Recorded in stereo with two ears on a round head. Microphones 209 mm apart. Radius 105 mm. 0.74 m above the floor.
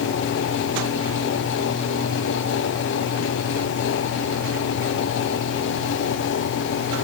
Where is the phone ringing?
No phone ringing in this recording.